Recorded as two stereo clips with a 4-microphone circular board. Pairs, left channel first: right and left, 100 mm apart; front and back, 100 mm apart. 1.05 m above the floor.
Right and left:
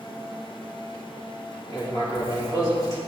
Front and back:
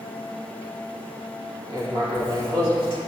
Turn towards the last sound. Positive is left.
turn(degrees=-145)